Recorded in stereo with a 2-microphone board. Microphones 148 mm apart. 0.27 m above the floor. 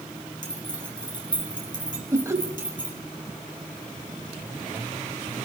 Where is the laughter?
20° right (ahead or behind), 1.2 m.